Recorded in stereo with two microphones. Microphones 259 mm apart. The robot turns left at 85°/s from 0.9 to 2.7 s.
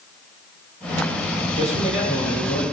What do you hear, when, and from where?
1.6 s a man speaking: 165° left, 5 m; by 2.6 s 70° left, 5 m